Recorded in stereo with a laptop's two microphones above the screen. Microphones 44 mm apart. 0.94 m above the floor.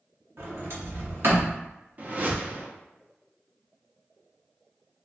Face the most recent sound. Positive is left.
turn(degrees=-40)  # may be behind; listen again after turning